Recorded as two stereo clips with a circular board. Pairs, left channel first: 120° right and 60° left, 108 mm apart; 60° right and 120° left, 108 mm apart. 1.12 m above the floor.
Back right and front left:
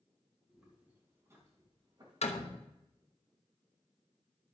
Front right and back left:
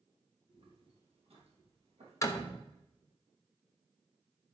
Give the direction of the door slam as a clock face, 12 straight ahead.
4 o'clock.